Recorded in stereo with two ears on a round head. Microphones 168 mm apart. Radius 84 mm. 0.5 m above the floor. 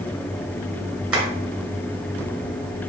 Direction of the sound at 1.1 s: 5° right (ahead or behind).